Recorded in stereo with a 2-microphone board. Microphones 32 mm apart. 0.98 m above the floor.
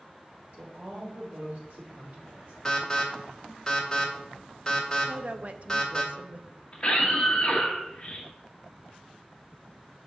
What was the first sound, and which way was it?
A woman speaking, 65° right (ahead or behind).